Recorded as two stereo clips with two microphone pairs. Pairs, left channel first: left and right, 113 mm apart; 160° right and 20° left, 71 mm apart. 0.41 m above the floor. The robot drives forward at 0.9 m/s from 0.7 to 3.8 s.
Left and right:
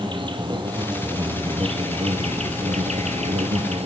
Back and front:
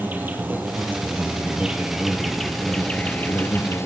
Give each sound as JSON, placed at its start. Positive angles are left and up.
{"t": 0.0, "sound": "an insect", "azimuth_deg": -40, "distance_m": 3.0}